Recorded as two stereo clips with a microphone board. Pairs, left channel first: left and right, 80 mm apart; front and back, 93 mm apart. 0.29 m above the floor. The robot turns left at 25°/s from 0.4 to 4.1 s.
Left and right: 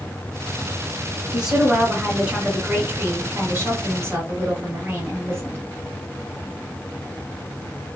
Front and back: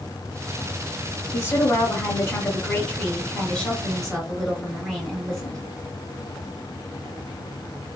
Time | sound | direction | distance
1.3 | a woman speaking | 20° right | 1.3 m